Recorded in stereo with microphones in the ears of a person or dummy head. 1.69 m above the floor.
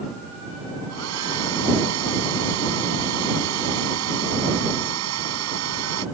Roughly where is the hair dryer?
Right.